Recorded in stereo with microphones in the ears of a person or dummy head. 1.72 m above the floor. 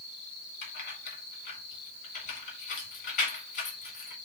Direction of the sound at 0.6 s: 50° left (ahead or behind).